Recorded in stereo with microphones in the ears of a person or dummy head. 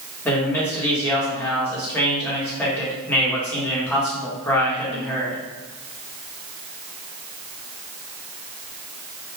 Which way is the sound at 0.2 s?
10° left (ahead or behind).